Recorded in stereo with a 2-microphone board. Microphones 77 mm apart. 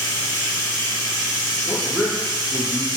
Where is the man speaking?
10° right (ahead or behind), 1.1 m.